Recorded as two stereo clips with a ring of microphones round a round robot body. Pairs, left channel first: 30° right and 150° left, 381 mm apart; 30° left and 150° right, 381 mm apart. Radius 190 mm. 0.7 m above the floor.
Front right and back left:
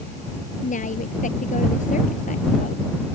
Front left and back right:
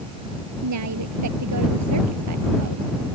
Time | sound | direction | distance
0.6 | a woman speaking | 100° right | ?